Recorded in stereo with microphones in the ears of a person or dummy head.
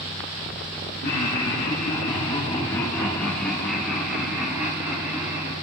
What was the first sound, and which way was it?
Laughter, 55° left (ahead or behind).